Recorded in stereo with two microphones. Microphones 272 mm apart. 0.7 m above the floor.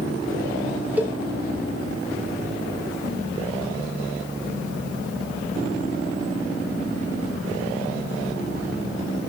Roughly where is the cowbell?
Centre.